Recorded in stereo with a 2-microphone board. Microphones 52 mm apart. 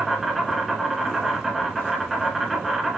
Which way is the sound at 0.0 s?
5° right (ahead or behind).